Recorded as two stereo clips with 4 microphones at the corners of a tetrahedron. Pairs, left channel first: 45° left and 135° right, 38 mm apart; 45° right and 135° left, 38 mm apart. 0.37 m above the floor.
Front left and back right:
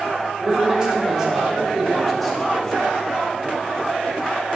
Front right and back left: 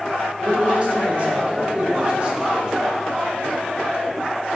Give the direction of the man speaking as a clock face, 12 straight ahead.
6 o'clock.